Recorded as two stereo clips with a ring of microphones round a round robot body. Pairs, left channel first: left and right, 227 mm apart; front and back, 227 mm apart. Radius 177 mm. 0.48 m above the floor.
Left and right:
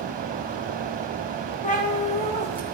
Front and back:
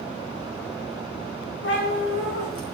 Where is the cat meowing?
35° left, 4 m; by 2.8 s 20° left, 4 m.